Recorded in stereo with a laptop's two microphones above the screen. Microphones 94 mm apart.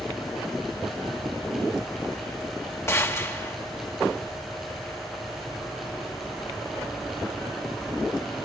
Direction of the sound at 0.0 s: 10° right (ahead or behind).